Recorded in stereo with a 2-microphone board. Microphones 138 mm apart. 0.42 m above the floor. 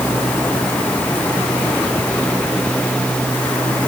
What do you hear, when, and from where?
Only background noise.